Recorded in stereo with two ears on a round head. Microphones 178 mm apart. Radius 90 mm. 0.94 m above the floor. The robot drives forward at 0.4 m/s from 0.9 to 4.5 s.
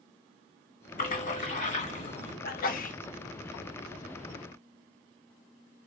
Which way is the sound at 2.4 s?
50° left (ahead or behind).